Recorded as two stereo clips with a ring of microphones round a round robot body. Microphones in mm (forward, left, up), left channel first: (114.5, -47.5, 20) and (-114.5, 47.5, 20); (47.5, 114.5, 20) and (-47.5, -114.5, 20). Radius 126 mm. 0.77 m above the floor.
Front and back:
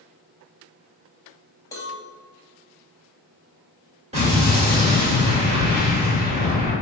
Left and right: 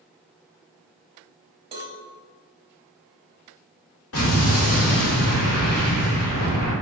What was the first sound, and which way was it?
A cowbell, 80° right.